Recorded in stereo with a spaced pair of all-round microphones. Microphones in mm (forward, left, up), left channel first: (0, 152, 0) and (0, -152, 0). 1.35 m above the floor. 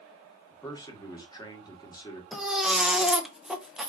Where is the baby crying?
Centre (ahead or behind), 0.5 m.